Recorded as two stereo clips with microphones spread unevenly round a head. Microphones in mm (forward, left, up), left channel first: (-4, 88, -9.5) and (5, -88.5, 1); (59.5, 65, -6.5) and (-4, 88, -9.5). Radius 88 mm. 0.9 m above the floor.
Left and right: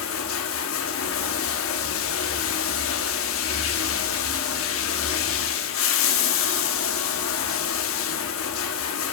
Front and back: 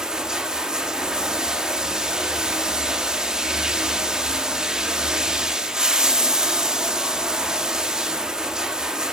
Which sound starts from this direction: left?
Running water, at 0.0 s.